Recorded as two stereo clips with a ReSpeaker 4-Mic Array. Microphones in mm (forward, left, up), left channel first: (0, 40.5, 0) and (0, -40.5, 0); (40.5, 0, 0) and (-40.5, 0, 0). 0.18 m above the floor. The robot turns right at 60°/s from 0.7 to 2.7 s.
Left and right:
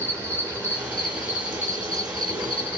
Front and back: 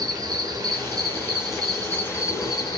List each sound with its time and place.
0.0 s an insect: 145° right, 3 m; by 2.8 s 25° right, 3 m